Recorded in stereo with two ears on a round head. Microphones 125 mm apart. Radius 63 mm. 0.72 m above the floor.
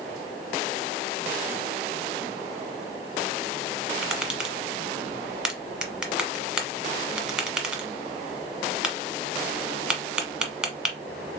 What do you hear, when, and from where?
4.0 s tapping: 5° right (ahead or behind), 1.1 m